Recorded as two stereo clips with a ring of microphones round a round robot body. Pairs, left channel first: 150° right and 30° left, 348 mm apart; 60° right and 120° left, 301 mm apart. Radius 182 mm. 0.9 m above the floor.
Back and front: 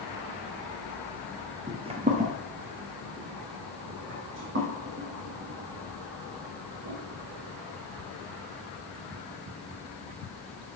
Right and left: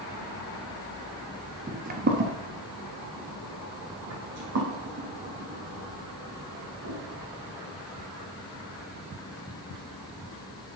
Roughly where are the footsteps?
Left.